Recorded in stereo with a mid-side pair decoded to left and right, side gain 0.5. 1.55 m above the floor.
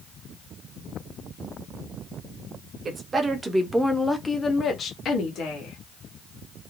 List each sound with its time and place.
2.9 s a woman speaking: 40° right, 1.0 m; by 5.8 s 75° left, 1.2 m